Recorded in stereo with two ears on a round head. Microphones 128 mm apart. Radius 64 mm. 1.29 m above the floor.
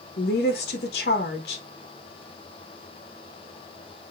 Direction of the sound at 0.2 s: 80° left.